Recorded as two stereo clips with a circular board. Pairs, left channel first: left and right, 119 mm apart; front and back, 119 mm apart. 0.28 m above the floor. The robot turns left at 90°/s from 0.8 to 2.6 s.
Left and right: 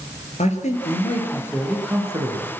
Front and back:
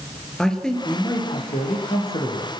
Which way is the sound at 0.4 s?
85° left.